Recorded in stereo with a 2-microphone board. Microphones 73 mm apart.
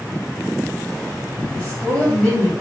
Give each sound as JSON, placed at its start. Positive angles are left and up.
{"t": 1.5, "sound": "a woman speaking", "side_deg": 15, "distance_m": 1.6}